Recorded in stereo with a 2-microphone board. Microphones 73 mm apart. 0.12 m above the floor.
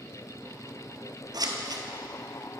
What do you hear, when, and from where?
1.3 s scissors: 65° right (ahead or behind), 0.9 m